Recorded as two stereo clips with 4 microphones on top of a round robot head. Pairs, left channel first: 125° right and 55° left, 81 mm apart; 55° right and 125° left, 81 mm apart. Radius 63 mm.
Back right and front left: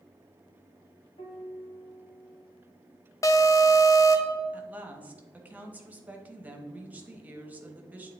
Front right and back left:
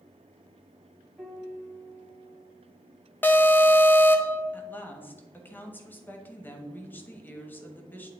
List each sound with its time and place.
1.2 s a piano: 155° right, 1.5 m
3.2 s an alarm: 110° right, 0.8 m
4.5 s a woman speaking: 5° right, 1.2 m